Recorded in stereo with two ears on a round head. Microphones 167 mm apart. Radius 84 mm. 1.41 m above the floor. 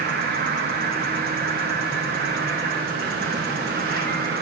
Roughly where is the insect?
Right.